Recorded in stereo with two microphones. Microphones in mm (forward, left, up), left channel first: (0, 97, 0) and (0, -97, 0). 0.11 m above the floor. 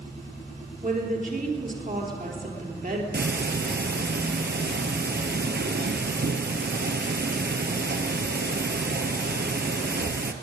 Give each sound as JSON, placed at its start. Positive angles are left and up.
{"t": 0.8, "sound": "a woman speaking", "side_deg": -45, "distance_m": 2.5}
{"t": 3.1, "sound": "ticking", "side_deg": -60, "distance_m": 0.9}